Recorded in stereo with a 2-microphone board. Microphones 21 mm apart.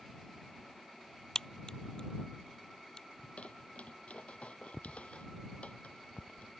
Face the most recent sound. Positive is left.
turn(degrees=75)  # may be behind; listen again after turning